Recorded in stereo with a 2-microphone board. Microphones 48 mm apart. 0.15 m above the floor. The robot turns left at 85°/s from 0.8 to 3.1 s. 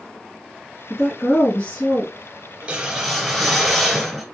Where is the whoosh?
140° right, 1.3 m; by 4.2 s 175° left, 1.3 m.